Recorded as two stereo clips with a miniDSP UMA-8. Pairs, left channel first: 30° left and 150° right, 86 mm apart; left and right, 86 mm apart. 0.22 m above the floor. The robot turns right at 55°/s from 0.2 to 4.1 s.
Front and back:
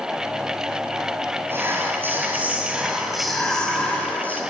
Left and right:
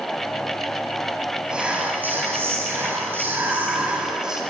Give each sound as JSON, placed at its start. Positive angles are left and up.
{"t": 1.5, "sound": "whispering", "azimuth_deg": -160, "distance_m": 1.0}